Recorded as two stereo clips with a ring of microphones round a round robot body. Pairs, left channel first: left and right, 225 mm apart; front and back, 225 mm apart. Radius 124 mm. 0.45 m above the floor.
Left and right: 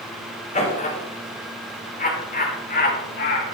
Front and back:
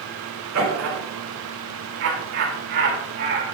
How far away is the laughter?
About 4.5 m.